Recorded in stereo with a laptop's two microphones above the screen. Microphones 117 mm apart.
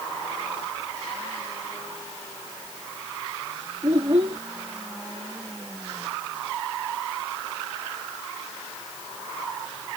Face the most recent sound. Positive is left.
turn(degrees=-55)  # may be behind; listen again after turning